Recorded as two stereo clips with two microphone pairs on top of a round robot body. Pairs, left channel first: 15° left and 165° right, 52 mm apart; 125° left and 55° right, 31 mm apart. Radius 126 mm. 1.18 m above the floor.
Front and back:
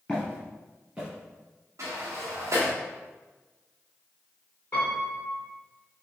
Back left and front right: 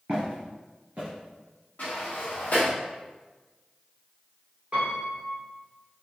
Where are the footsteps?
50° right, 1.3 m; by 1.1 s 100° right, 1.2 m.